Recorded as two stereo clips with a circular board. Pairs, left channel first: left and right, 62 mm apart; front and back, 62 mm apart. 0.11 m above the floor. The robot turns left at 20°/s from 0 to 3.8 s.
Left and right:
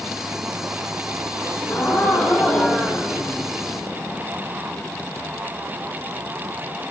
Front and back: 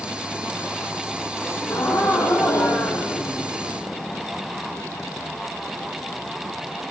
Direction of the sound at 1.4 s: 45° left.